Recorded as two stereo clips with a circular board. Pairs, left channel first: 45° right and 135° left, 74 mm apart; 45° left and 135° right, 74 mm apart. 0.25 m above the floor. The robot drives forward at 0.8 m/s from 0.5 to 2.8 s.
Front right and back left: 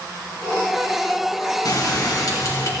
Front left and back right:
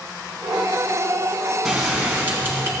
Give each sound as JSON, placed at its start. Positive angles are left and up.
{"t": 1.6, "sound": "a bell", "azimuth_deg": -55, "distance_m": 2.0}